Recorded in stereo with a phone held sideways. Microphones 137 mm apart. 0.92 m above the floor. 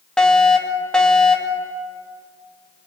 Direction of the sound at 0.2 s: 5° left (ahead or behind).